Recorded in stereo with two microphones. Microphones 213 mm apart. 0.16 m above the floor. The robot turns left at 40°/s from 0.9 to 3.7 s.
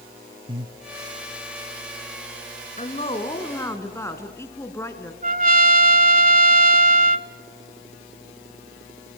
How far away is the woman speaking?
About 2 m.